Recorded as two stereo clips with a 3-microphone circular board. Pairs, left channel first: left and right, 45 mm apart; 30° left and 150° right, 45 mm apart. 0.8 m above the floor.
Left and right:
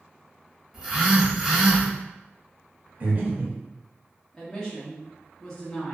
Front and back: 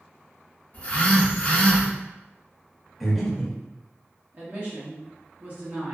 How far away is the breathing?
About 0.6 m.